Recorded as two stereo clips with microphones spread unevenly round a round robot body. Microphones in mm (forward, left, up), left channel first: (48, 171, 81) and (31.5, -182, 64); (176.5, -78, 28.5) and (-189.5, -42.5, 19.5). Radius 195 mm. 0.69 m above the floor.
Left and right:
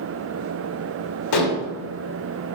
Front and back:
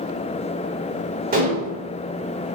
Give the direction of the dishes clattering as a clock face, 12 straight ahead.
8 o'clock.